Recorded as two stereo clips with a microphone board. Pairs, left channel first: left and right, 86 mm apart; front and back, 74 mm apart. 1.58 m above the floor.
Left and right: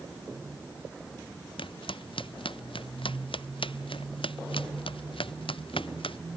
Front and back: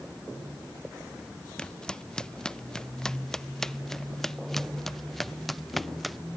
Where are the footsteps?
80° left; by 6.2 s 90° left.